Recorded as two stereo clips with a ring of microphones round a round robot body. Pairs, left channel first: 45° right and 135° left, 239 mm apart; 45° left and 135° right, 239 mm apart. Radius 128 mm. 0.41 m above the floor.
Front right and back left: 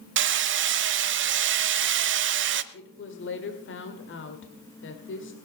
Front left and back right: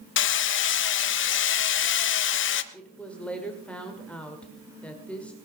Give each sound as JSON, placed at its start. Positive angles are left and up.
{"t": 0.2, "sound": "hammering", "azimuth_deg": 90, "distance_m": 0.8}
{"t": 2.7, "sound": "a woman speaking", "azimuth_deg": -40, "distance_m": 2.0}